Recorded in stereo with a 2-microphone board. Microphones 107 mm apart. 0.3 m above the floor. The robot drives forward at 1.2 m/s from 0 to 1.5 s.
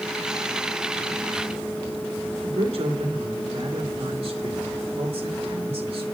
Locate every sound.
2.4 s a man speaking: 65° right (ahead or behind), 4 m